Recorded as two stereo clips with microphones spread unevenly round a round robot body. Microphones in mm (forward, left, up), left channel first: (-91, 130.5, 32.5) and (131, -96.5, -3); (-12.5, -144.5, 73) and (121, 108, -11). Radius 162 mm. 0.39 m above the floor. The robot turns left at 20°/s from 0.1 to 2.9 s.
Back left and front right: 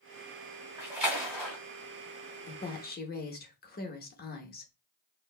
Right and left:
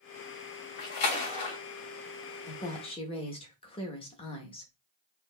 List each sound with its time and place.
0.8 s a splash: 125° right, 1.7 m; by 1.6 s 140° right, 1.7 m
2.5 s a woman speaking: 170° left, 0.8 m; by 4.7 s 160° left, 0.8 m